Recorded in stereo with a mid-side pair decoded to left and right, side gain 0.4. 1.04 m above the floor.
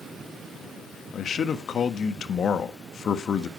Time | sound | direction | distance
1.1 | a man speaking | 60° left | 1.4 m